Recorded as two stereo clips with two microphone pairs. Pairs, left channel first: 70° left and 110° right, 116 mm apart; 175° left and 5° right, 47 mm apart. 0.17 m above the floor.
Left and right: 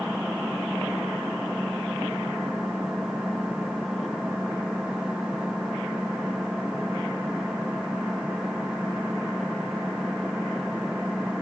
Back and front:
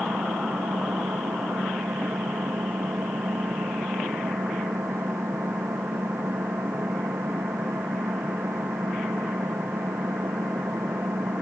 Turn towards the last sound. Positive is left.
turn(degrees=-25)